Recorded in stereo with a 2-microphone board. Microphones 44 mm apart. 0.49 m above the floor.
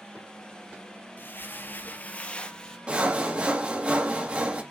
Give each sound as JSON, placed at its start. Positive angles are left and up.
{"t": 1.2, "sound": "footsteps", "side_deg": 50, "distance_m": 0.7}
{"t": 2.9, "sound": "sawing", "side_deg": -30, "distance_m": 0.8}